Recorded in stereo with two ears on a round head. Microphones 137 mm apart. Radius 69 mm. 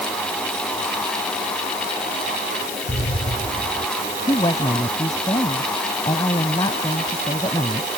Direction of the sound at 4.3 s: 25° left (ahead or behind).